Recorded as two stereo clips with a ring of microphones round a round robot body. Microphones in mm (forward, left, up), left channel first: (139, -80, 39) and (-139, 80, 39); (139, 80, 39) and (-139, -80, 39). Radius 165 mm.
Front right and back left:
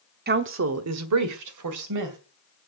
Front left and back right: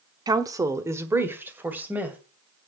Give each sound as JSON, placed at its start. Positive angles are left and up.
{"t": 0.3, "sound": "a woman speaking", "azimuth_deg": 145, "distance_m": 1.0}